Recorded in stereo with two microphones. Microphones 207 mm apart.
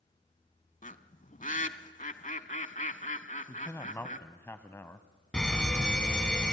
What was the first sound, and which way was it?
A bird, 40° left (ahead or behind).